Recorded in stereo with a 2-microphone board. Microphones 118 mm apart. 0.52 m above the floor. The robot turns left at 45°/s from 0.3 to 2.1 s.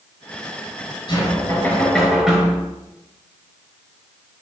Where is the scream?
I don't hear a scream.